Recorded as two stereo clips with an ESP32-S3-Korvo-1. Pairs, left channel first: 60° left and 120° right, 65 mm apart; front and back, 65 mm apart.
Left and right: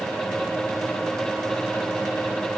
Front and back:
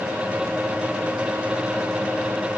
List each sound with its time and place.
Only background noise.